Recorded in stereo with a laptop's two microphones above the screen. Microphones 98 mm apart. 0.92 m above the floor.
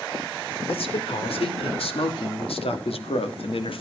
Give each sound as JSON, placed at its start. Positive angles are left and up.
{"t": 0.7, "sound": "a man speaking", "side_deg": 75, "distance_m": 3.5}